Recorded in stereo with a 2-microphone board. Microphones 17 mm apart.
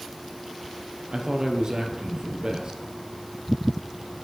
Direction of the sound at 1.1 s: 65° right (ahead or behind).